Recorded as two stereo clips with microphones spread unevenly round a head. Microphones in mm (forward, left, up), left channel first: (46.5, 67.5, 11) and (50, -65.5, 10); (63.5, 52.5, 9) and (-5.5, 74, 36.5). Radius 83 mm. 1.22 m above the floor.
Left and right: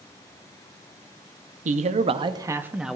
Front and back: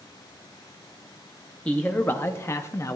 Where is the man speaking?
80° right, 0.7 m; by 3.0 s straight ahead, 0.7 m.